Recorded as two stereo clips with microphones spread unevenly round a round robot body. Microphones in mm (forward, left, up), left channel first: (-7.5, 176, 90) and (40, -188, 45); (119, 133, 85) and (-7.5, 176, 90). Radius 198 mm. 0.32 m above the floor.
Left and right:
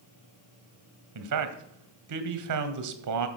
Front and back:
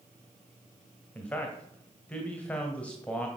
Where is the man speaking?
95° right, 1.8 m.